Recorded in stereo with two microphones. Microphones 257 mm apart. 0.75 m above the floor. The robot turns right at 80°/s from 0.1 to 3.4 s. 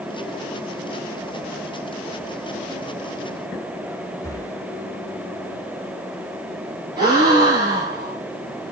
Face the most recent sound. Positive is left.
turn(degrees=-15)  # may be behind; listen again after turning